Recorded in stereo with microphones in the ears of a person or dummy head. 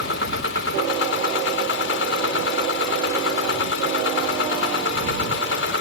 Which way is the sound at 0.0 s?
75° left (ahead or behind).